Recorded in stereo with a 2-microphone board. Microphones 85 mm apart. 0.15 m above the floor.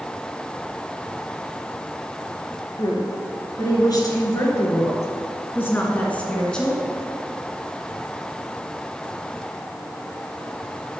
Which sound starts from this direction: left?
A woman speaking, at 2.8 s.